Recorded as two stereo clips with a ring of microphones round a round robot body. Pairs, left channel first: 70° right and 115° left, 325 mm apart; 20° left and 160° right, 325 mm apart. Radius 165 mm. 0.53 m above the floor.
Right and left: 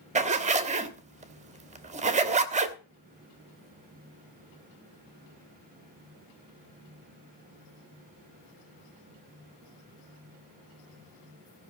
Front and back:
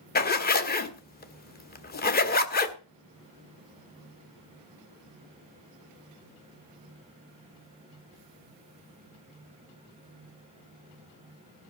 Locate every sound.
0.1 s a zipper: 60° left, 1.2 m